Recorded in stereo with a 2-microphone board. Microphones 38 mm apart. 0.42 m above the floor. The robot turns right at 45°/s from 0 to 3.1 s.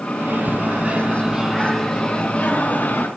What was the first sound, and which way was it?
A microwave, 70° right.